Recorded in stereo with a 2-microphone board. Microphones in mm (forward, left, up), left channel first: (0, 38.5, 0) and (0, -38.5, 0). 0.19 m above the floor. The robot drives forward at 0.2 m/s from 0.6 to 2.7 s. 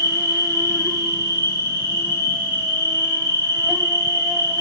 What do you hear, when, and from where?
0.0 s an insect: 40° right (ahead or behind), 1.2 m; by 4.6 s 30° right (ahead or behind), 1.6 m